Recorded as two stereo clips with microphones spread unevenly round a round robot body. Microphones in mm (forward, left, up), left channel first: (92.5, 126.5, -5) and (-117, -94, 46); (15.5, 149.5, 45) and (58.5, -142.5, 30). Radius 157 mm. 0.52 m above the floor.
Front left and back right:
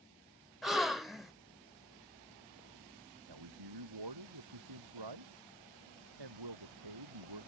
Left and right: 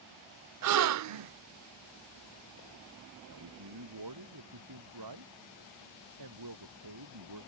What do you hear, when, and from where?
0.6 s a gasp: 45° right
3.3 s a man speaking: 110° right